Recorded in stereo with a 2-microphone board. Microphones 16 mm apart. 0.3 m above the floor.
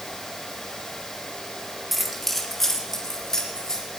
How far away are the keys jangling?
About 1.7 m.